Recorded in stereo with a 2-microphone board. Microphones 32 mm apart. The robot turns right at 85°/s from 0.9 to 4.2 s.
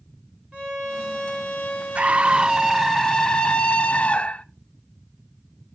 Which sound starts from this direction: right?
A scream, at 1.9 s.